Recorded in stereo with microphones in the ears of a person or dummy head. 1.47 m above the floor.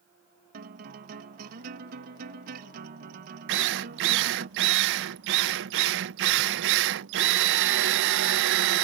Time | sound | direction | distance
0.5 | a guitar | 35° right (ahead or behind) | ?
3.5 | a drill | 55° right (ahead or behind) | ?